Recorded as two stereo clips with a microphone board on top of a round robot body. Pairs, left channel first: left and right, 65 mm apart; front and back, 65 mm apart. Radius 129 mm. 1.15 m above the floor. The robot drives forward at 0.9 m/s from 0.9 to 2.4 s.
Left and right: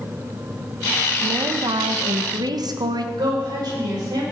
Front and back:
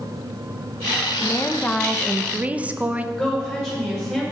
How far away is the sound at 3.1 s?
About 6 m.